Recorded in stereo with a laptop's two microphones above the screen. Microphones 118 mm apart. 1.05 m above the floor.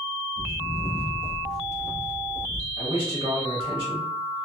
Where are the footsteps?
30° left (ahead or behind), 1.3 m; by 2.7 s 30° right (ahead or behind), 1.1 m.